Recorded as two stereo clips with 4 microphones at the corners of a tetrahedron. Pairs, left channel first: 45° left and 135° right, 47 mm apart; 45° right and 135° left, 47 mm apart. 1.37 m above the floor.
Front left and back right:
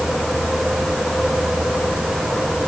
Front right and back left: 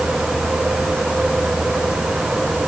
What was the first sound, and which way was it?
Only background noise.